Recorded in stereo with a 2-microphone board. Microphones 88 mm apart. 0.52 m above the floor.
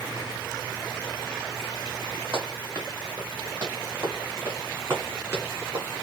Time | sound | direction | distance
2.3 | running footsteps | 35° right (ahead or behind) | 3 m